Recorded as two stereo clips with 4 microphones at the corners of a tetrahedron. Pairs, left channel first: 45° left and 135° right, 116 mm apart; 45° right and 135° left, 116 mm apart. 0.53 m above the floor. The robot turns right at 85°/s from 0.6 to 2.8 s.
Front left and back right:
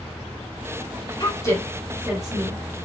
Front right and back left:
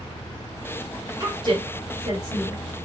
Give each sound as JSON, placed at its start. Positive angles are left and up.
{"t": 1.2, "sound": "a woman speaking", "azimuth_deg": 85, "distance_m": 1.2}